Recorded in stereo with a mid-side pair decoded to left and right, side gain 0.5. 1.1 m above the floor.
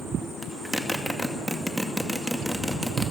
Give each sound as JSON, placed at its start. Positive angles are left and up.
{"t": 0.4, "sound": "a zipper", "azimuth_deg": 0, "distance_m": 2.0}